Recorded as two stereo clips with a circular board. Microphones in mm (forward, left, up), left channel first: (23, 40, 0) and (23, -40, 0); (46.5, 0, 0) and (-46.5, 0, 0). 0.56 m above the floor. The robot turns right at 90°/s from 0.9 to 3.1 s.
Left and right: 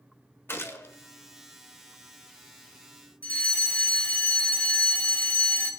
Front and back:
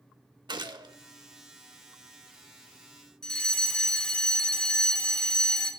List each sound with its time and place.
0.5 s a gunshot: 145° left, 0.8 m; by 0.9 s 150° left, 0.8 m
3.2 s a fire alarm: 65° left, 1.6 m